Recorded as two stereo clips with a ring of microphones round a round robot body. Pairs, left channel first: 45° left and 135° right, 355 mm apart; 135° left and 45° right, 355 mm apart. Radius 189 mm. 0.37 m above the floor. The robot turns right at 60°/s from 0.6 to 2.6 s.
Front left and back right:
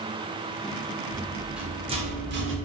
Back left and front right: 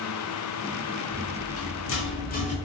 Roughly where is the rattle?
Left.